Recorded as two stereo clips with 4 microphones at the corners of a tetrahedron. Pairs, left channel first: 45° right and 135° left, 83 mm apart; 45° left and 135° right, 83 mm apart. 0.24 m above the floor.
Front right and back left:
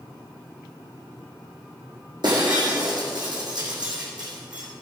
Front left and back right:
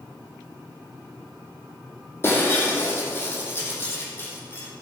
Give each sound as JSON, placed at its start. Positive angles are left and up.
{"t": 2.2, "sound": "breaking glass", "azimuth_deg": 105, "distance_m": 4.0}